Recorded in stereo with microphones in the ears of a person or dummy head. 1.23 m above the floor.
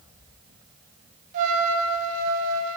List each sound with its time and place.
1.3 s a trumpet: 45° right (ahead or behind), 0.5 m